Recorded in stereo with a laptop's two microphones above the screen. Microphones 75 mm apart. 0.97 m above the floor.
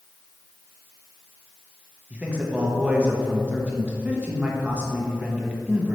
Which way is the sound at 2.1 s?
20° right (ahead or behind).